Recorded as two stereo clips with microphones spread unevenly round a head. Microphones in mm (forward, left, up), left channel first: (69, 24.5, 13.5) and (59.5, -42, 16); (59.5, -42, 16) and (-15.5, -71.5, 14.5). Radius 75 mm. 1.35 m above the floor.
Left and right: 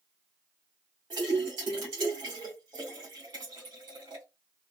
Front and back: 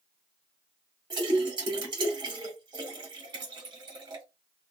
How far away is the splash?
About 1.8 m.